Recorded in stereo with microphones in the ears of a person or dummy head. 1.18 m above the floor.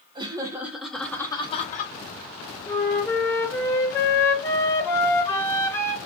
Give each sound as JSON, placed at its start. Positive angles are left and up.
{"t": 0.1, "sound": "laughter", "side_deg": -25, "distance_m": 1.0}
{"t": 2.7, "sound": "a flute", "side_deg": 20, "distance_m": 0.7}